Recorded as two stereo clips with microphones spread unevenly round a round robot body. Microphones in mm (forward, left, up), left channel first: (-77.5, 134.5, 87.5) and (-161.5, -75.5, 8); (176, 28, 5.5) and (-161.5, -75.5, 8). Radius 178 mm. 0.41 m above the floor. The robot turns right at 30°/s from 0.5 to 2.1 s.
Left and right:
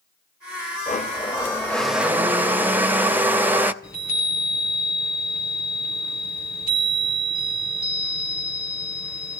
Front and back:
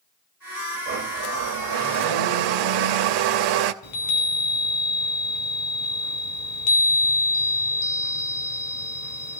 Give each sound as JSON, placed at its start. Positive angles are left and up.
{"t": 0.9, "sound": "a blender", "azimuth_deg": 135, "distance_m": 0.7}
{"t": 3.8, "sound": "a chime", "azimuth_deg": -15, "distance_m": 2.0}